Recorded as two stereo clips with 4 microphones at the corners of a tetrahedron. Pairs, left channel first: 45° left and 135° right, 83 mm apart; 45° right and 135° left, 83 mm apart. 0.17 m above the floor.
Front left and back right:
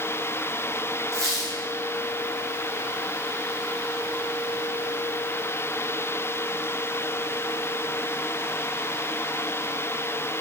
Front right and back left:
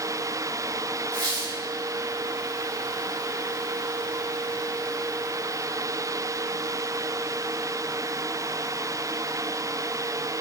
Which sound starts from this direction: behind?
A squeak, at 1.1 s.